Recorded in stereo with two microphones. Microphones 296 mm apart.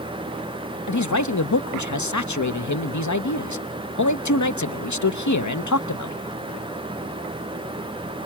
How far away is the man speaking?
About 0.8 m.